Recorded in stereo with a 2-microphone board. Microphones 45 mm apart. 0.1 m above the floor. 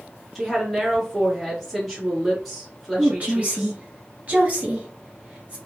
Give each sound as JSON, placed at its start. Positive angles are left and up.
{"t": 0.3, "sound": "a woman speaking", "side_deg": -5, "distance_m": 1.3}
{"t": 3.0, "sound": "a woman speaking", "side_deg": -35, "distance_m": 1.4}